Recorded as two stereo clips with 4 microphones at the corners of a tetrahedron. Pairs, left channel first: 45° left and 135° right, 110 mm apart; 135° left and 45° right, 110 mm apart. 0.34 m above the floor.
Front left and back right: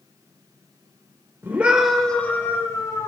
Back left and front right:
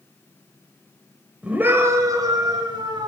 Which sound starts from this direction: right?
A scream, at 1.4 s.